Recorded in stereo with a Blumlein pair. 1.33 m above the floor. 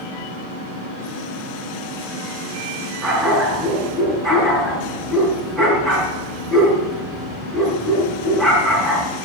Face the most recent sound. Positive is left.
turn(degrees=-15)